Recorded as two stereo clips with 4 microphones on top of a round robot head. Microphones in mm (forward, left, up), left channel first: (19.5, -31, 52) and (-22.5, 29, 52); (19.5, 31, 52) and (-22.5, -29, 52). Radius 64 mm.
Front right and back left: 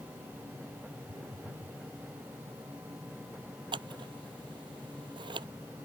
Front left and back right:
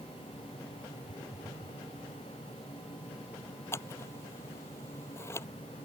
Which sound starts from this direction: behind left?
A phone buzzing, at 1.1 s.